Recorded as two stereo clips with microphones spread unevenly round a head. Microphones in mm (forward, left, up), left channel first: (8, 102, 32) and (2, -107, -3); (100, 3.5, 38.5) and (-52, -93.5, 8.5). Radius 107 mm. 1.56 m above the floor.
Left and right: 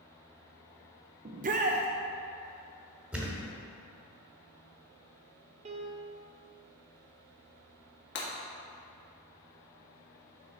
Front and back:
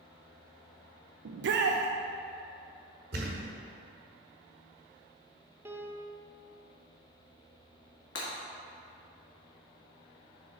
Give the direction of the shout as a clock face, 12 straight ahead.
5 o'clock.